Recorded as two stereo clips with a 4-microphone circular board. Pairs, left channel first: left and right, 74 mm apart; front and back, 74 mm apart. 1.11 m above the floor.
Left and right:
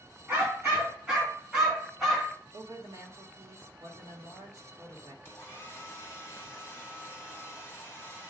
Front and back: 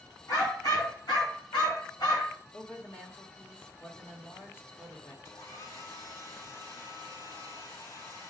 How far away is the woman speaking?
About 1.8 m.